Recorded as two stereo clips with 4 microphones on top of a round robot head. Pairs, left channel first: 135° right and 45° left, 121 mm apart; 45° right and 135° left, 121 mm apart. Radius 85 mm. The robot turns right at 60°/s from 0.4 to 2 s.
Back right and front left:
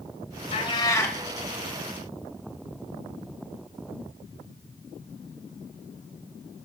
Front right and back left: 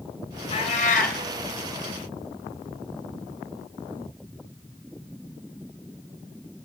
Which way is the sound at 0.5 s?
95° right.